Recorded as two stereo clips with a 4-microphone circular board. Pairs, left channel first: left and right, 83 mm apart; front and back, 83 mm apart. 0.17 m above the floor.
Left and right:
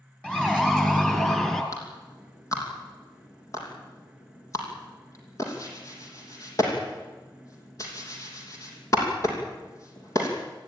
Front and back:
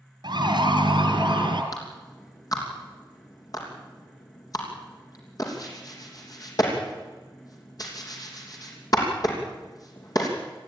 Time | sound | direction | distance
0.2 | a siren | 165° left | 3 m
1.7 | a clap | 40° left | 5.5 m